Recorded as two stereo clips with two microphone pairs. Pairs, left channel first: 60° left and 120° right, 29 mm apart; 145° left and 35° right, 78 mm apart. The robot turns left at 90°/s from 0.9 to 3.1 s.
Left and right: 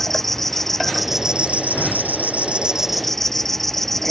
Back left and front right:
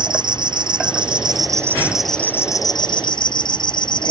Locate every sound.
0.0 s an insect: 20° right; by 4.1 s 140° left